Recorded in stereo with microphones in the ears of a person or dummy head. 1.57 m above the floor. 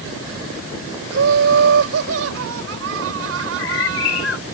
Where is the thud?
No thud in this recording.